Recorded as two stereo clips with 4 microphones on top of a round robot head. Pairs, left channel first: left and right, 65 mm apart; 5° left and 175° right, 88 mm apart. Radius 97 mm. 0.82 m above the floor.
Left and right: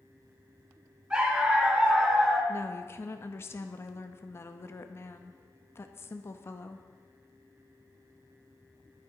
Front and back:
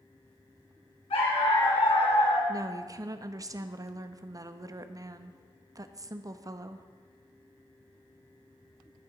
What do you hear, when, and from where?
1.1 s a dog barking: 15° right, 3.5 m; by 2.4 s 5° right, 3 m
2.5 s a woman speaking: 135° left, 0.8 m